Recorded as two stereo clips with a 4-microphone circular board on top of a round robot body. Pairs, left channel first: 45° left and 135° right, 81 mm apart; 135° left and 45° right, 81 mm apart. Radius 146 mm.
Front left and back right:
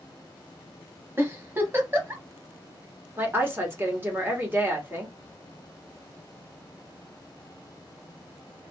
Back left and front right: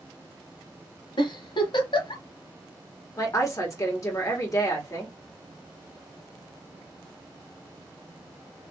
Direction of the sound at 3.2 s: 170° left.